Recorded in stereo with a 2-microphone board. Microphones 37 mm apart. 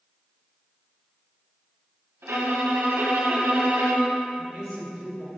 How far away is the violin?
About 2 m.